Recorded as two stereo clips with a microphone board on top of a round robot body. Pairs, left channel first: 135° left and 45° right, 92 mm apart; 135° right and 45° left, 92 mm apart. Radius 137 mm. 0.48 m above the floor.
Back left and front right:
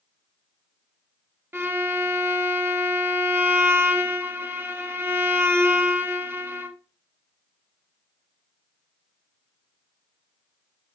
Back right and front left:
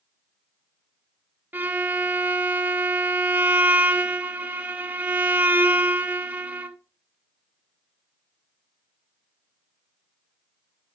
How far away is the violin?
About 1.2 m.